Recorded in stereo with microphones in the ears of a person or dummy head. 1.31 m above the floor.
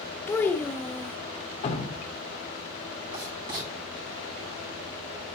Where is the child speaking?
10° left (ahead or behind), 0.8 m.